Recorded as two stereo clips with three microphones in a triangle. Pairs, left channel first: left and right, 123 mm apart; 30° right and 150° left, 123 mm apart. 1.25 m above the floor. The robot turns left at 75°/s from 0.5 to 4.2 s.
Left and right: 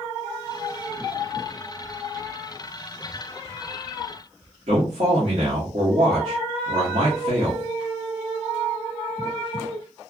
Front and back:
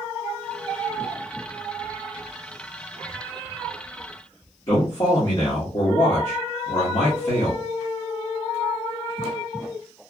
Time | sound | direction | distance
4.7 | a man speaking | 70° right | 1.2 m